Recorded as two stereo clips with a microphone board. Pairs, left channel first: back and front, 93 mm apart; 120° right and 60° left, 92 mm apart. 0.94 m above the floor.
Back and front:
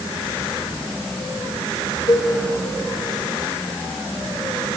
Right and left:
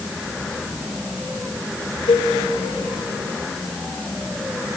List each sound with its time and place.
2.1 s a cowbell: 135° right, 1.4 m